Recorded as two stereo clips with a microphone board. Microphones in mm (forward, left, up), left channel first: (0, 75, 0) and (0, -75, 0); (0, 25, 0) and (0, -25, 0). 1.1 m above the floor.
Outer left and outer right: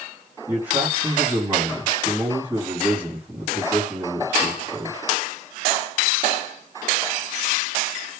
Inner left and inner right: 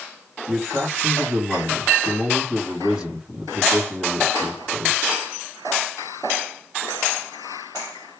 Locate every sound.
0.5 s a man speaking: 10° right (ahead or behind), 2.5 m